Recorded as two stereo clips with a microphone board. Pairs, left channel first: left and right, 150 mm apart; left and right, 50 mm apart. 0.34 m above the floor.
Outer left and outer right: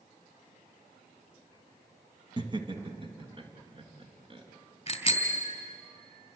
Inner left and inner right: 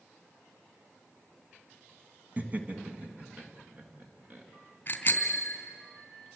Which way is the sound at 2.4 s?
30° right (ahead or behind).